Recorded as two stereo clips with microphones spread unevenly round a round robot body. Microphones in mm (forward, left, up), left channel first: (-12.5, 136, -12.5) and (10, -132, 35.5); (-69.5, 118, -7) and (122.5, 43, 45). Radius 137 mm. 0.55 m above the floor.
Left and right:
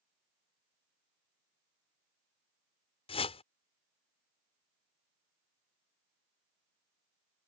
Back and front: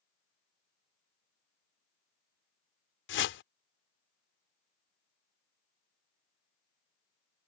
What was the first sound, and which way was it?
A whoosh, 160° left.